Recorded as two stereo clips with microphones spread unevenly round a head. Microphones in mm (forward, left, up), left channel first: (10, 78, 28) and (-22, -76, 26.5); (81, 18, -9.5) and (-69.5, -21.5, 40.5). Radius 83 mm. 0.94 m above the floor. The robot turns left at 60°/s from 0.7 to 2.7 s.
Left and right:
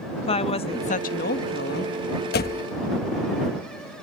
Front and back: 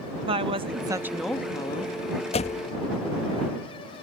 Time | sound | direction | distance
0.3 | a woman speaking | 130° left | ?
2.3 | a door slam | 60° left | ?